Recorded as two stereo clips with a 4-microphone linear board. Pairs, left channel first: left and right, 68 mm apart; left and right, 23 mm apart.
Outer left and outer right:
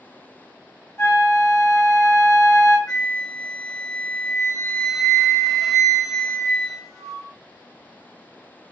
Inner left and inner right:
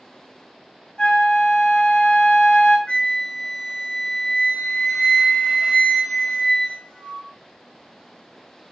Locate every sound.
1.0 s a flute: 40° left (ahead or behind), 1.4 m
2.9 s a flute: 60° left (ahead or behind), 1.0 m